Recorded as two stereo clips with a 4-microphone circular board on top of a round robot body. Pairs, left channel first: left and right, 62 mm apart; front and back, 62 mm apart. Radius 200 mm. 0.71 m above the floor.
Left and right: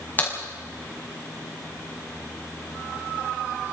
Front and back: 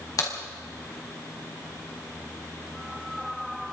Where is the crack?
30° left, 5.5 m.